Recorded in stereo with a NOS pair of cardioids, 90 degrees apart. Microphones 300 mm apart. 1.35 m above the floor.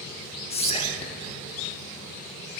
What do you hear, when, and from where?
0.5 s whispering: 20° left, 0.5 m